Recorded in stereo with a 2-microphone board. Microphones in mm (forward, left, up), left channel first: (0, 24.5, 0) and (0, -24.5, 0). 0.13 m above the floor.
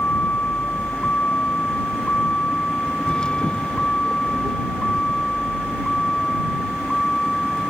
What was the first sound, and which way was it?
A vehicle, 30° left (ahead or behind).